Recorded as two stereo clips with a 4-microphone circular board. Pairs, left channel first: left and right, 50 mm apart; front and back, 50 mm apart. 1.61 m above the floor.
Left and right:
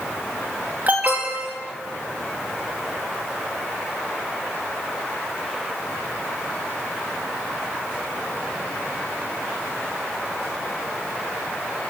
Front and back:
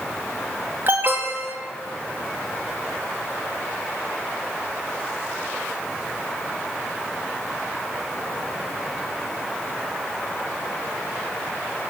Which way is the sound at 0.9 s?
145° right.